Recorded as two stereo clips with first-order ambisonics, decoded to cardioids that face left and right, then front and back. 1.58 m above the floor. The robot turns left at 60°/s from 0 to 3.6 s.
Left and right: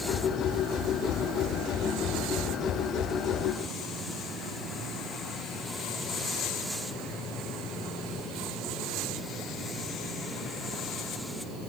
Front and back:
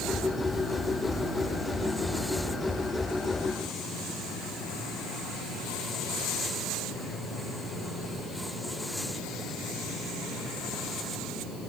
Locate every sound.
Only background noise.